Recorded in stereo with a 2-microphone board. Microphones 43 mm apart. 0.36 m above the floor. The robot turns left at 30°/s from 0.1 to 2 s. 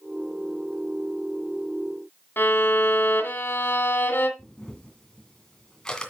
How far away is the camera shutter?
About 2 m.